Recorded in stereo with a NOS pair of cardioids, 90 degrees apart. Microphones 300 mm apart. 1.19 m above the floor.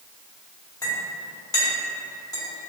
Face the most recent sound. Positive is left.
turn(degrees=10)